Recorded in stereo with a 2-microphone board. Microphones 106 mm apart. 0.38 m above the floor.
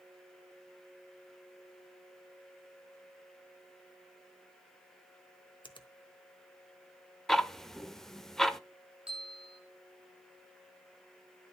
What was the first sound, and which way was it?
A finger snap, 45° left (ahead or behind).